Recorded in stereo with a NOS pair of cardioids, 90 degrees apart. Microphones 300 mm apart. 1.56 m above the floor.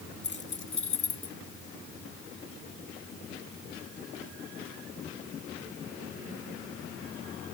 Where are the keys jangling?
40° left; by 1.4 s 55° left.